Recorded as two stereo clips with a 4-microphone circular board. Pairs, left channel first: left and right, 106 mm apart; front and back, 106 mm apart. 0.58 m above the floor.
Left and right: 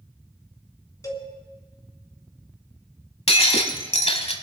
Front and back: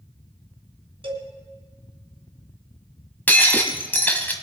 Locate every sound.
1.0 s a cowbell: 150° left, 2.5 m
3.3 s breaking glass: 75° left, 1.3 m